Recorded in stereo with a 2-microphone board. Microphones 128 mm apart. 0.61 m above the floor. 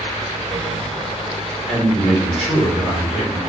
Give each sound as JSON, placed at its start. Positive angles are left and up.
{"t": 1.7, "sound": "a man speaking", "side_deg": 5, "distance_m": 1.5}